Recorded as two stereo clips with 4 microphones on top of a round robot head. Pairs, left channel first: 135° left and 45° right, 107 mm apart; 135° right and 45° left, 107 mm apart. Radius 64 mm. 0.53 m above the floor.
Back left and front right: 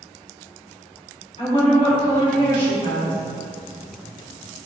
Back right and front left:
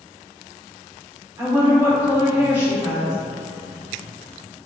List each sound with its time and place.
1.4 s a woman speaking: 110° left, 1.5 m